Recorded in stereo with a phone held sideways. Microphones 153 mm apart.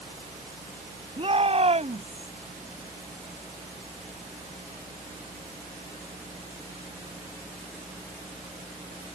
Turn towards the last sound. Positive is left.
turn(degrees=-50)  # may be behind; listen again after turning